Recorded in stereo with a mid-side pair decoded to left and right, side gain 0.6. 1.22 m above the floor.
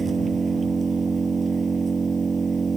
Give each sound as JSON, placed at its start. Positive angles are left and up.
{"t": 0.0, "sound": "an engine running", "azimuth_deg": -25}